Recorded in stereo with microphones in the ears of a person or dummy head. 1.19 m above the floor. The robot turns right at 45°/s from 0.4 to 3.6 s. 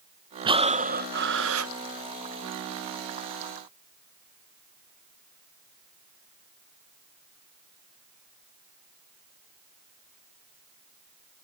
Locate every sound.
0.5 s breathing: 155° right; by 1.7 s 100° right